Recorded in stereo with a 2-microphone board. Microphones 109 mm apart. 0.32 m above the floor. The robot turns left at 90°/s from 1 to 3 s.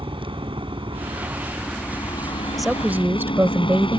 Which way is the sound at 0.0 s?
120° right.